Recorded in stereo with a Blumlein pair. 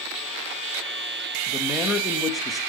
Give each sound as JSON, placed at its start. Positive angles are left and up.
{"t": 1.5, "sound": "a man speaking", "azimuth_deg": 15, "distance_m": 2.5}